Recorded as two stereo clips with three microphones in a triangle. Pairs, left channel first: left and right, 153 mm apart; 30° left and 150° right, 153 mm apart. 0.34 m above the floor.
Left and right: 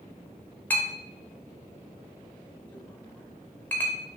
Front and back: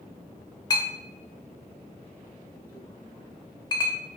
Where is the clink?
25° left, 0.8 m.